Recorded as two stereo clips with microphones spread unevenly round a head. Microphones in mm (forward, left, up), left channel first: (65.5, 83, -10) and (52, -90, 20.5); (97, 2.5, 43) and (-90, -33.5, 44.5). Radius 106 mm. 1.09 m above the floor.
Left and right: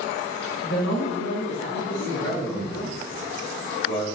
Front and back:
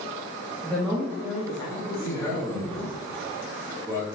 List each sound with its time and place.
0.6 s a woman speaking: 100° left, 2.5 m; by 3.0 s 70° left, 3.5 m
2.0 s a man speaking: 85° left, 3 m